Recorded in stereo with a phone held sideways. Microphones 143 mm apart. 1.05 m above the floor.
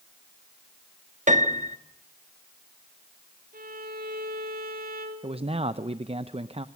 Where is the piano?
60° right (ahead or behind), 1.4 m.